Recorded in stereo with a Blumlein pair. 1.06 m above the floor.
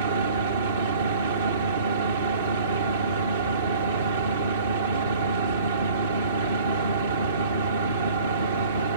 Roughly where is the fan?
Ahead right.